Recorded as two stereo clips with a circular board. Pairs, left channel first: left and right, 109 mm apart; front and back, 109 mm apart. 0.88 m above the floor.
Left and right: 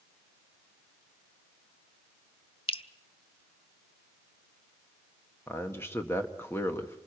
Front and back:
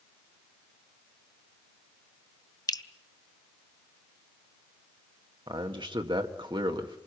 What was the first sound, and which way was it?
Dripping, 55° left.